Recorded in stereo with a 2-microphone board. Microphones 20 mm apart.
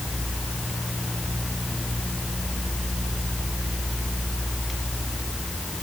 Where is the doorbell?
I don't hear a doorbell.